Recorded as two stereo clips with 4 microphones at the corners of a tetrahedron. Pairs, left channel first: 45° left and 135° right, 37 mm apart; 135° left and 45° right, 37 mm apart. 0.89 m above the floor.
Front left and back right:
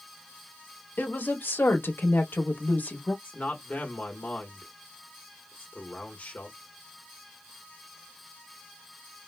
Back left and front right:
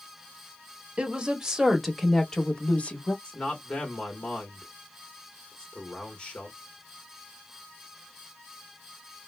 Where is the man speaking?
80° left, 1.1 m.